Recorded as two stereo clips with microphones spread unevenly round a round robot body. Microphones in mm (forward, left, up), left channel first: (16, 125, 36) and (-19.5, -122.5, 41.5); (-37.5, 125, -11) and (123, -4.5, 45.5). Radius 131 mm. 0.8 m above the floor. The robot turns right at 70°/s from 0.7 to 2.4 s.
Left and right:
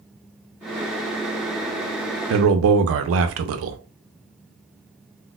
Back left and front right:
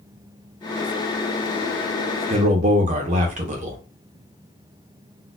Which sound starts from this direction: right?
A man speaking, at 2.3 s.